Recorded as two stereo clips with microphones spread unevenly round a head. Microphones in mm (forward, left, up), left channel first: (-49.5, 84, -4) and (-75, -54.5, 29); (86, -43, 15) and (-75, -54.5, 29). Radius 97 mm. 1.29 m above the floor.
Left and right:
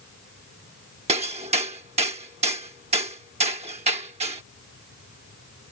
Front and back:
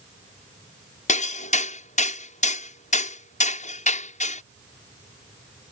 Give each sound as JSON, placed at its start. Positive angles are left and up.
{"t": 1.1, "sound": "hammering", "azimuth_deg": -40}